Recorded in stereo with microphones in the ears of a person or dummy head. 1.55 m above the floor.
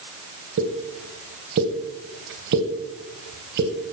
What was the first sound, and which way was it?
A pop, 55° right (ahead or behind).